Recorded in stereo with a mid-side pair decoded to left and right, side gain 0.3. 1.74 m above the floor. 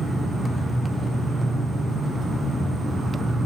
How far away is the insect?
About 4 m.